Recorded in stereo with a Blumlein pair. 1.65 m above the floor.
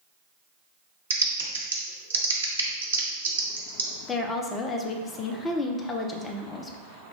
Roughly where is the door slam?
No door slam in this recording.